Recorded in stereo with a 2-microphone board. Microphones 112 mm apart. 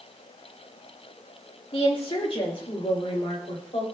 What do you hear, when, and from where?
1.7 s a woman speaking: 50° left (ahead or behind), 1.9 m; by 3.9 s 60° left (ahead or behind), 3 m